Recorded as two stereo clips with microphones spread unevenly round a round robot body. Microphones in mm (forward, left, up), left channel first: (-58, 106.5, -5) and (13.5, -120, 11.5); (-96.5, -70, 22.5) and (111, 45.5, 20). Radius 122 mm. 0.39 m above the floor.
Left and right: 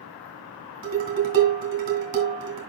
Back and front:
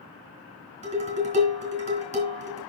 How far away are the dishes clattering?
About 2.5 m.